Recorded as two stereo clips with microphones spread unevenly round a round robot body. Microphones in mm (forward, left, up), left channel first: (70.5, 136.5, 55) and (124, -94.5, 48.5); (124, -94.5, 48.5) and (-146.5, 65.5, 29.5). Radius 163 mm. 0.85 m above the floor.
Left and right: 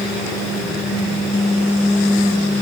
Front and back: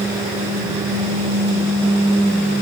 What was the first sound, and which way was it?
Only background noise.